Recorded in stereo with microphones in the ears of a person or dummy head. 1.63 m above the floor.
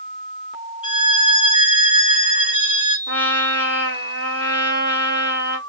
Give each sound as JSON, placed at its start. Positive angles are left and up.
{"t": 0.8, "sound": "a violin", "side_deg": 30, "distance_m": 1.5}
{"t": 3.1, "sound": "a trumpet", "side_deg": 60, "distance_m": 2.5}